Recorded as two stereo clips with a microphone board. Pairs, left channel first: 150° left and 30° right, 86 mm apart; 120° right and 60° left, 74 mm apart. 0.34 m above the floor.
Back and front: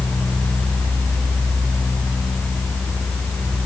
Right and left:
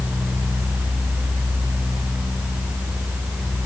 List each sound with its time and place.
Only background noise.